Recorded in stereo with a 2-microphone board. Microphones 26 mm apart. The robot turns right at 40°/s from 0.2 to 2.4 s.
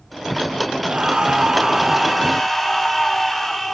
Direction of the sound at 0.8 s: 50° right.